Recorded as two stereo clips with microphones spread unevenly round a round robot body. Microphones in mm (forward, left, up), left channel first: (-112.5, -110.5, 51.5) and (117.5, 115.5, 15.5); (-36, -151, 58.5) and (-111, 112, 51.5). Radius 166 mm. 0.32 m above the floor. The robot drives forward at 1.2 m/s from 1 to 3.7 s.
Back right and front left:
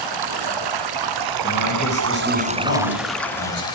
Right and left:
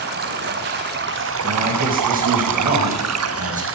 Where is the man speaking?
165° left, 9.5 m.